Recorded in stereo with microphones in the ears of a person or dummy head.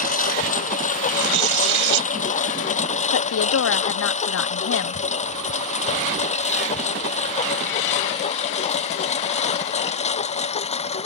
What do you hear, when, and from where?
0.0 s a lawn mower: 40° left (ahead or behind); by 11.1 s 30° left (ahead or behind)
1.1 s tearing paper: 65° right (ahead or behind)
3.1 s a woman speaking: 80° left